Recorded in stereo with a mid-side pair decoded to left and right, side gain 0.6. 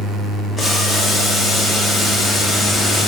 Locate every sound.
0.6 s boiling: straight ahead, 1.8 m